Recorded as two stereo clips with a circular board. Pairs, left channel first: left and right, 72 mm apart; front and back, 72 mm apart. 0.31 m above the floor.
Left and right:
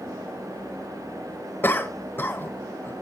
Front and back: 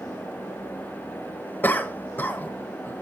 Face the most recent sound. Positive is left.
turn(degrees=50)